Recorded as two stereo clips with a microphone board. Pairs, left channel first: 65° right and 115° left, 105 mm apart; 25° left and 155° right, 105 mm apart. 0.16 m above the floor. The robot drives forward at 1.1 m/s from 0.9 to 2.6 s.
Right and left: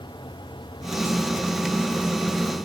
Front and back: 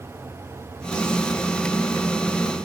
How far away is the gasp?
No gasp in this recording.